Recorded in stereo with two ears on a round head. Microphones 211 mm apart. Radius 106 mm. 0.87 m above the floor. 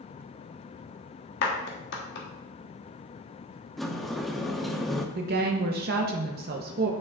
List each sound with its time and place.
1.4 s a clap: 45° left (ahead or behind), 1.1 m
3.8 s a sliding door: centre (ahead or behind), 0.5 m
5.2 s a woman speaking: 40° right (ahead or behind), 0.7 m